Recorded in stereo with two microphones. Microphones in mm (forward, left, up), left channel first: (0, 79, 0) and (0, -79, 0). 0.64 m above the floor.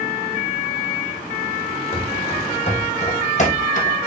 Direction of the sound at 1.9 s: 35° left (ahead or behind).